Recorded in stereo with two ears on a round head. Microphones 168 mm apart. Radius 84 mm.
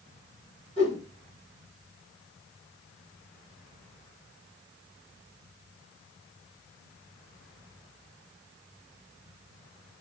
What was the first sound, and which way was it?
A whoosh, 35° left (ahead or behind).